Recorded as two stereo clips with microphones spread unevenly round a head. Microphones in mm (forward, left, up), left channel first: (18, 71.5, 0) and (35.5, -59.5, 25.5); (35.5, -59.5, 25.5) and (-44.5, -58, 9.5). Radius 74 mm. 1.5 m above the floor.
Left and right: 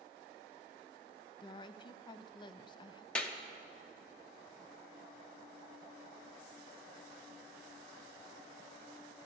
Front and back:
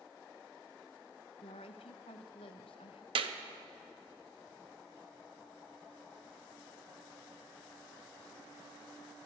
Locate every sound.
1.4 s a woman speaking: 40° left, 0.6 m
3.1 s a clap: straight behind, 0.8 m